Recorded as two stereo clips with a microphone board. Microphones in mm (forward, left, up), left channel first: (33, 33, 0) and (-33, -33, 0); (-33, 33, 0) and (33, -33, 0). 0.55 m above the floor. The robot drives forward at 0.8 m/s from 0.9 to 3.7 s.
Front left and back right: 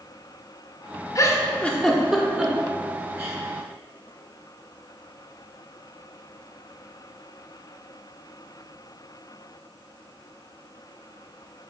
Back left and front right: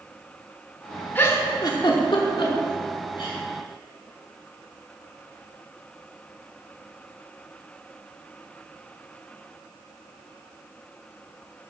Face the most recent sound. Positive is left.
turn(degrees=165)